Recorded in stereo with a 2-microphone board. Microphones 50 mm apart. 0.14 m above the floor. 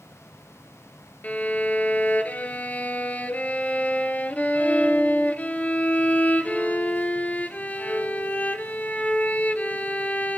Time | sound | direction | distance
1.2 | a violin | 30° left (ahead or behind) | 1.3 m